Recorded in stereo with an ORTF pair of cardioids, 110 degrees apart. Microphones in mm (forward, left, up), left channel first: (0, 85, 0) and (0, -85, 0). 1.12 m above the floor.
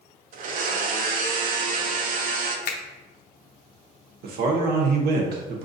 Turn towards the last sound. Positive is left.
turn(degrees=-65)